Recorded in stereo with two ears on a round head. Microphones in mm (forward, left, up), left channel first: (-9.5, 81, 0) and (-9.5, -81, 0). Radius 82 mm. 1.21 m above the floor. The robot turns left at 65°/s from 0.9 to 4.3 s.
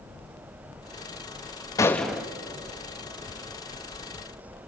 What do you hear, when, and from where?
1.8 s a gunshot: 20° left, 0.7 m; by 2.3 s 10° right, 0.7 m